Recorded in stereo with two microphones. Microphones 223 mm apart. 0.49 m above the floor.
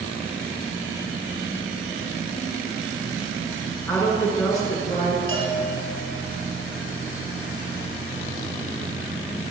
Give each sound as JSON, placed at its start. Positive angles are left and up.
{"t": 3.9, "sound": "a woman speaking", "side_deg": 15, "distance_m": 7.0}
{"t": 5.3, "sound": "a bell", "side_deg": -65, "distance_m": 5.5}